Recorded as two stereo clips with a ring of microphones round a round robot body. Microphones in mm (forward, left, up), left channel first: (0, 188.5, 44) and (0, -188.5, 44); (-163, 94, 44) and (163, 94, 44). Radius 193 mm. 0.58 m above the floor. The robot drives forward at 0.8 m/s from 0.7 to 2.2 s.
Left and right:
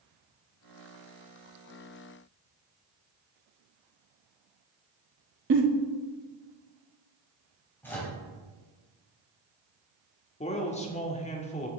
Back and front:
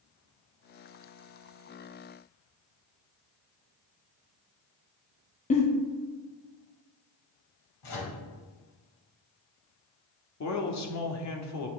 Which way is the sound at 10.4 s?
160° left.